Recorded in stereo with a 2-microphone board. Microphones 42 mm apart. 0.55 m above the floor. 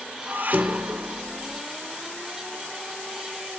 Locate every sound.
0.3 s dishes clattering: 45° right (ahead or behind), 1.0 m